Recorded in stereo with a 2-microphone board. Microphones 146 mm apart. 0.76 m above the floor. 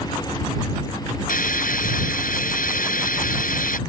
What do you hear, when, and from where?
1.3 s a hiss: 70° left (ahead or behind)